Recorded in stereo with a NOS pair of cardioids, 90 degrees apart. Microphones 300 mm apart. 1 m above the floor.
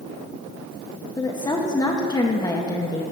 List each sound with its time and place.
1.2 s a woman speaking: 15° left, 0.8 m